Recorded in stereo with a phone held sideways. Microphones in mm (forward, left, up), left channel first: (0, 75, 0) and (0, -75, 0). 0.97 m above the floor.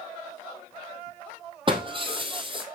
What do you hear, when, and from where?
1.7 s breaking glass: 35° right (ahead or behind), 2.5 m